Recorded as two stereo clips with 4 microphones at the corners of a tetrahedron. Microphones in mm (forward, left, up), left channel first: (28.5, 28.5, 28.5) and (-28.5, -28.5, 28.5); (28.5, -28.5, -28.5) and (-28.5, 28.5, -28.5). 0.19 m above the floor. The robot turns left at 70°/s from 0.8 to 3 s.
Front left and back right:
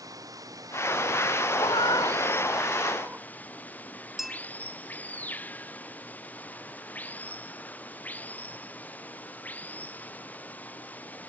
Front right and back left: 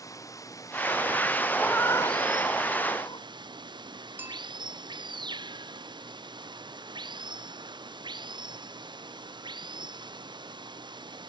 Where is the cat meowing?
35° left; by 3.2 s 65° right.